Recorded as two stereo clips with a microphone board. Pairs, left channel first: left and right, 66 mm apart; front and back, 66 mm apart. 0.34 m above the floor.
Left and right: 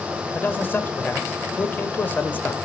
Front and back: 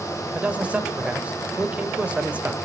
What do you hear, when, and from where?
0.3 s a man speaking: 125° left, 0.9 m